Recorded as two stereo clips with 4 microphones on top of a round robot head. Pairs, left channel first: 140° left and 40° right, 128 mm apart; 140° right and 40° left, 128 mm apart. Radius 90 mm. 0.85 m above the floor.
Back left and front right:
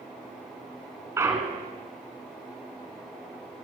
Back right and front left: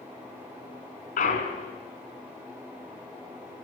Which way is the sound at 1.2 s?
110° right.